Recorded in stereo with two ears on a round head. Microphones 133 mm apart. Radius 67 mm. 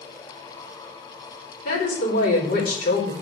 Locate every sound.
1.6 s a woman speaking: 70° left (ahead or behind), 3.5 m